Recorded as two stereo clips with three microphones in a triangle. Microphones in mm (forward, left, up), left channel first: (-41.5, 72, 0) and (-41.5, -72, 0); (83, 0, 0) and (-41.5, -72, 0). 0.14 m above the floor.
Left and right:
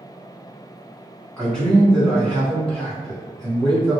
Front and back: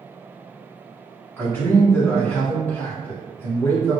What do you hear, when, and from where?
1.4 s a man speaking: 15° left, 1.6 m